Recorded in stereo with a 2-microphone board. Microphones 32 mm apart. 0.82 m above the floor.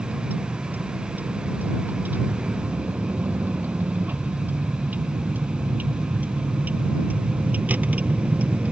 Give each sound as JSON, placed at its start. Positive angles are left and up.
{"t": 0.0, "sound": "a vehicle", "side_deg": -90}